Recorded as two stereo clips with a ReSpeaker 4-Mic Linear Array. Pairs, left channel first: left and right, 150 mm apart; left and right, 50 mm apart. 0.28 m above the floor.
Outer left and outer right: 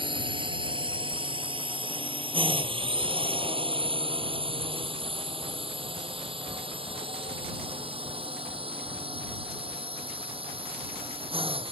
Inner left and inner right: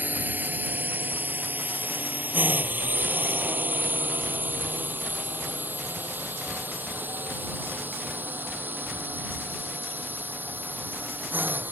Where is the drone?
35° right (ahead or behind); by 11.7 s 40° right (ahead or behind).